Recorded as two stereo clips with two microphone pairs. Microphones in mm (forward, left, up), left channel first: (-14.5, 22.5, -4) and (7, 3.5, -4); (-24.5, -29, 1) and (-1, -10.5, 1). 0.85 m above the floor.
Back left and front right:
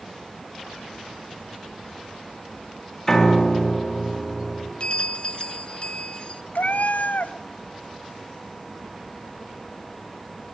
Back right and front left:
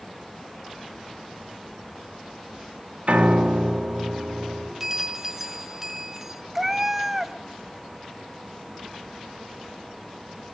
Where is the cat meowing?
115° left, 0.6 m.